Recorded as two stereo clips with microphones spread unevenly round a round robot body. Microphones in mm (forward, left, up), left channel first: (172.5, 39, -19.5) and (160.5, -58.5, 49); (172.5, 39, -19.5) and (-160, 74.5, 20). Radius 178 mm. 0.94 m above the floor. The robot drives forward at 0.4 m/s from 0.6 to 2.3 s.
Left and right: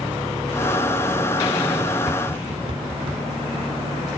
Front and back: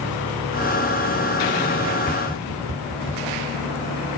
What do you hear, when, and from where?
2.1 s tapping: 85° right, 2 m; by 4.2 s 90° right, 2 m